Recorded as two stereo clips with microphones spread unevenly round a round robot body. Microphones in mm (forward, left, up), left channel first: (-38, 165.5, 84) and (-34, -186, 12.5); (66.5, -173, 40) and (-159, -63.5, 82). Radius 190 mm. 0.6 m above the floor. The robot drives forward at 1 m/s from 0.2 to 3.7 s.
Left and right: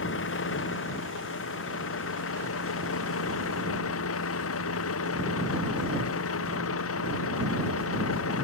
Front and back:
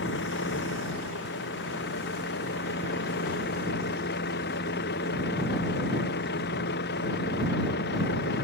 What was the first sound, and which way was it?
A vehicle, 30° left.